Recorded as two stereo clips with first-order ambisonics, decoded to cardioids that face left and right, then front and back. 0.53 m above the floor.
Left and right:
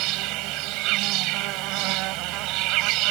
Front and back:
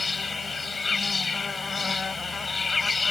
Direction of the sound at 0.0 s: 75° right.